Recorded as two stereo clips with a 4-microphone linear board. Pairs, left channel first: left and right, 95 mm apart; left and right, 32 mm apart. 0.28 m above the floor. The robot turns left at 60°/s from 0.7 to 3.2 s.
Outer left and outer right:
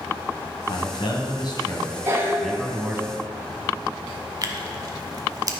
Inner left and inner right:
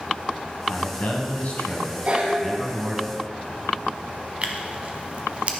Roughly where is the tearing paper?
Right.